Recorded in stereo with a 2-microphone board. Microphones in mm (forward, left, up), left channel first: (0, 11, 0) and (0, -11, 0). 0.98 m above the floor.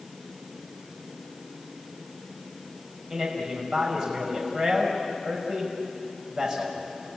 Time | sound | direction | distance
3.1 | a man speaking | 35° right (ahead or behind) | 5 m